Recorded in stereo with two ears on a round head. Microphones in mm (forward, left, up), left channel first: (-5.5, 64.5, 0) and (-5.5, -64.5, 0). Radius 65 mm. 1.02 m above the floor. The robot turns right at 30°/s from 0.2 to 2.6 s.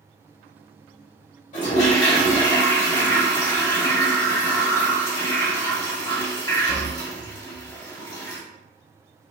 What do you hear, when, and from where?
1.5 s a toilet flushing: 120° left, 2.5 m; by 8.4 s 150° left, 2.5 m